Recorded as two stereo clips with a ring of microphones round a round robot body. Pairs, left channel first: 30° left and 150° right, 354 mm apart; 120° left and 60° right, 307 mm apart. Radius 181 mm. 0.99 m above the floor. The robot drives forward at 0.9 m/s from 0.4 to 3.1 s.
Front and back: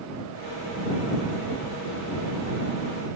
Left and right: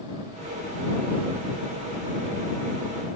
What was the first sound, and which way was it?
Only background noise.